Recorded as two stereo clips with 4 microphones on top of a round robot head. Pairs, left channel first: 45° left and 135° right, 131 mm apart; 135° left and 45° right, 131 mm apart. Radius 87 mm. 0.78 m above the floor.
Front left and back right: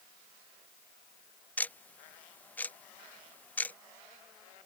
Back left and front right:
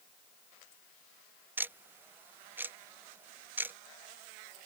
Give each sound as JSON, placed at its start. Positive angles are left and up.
{"t": 1.6, "sound": "ticking", "azimuth_deg": -5}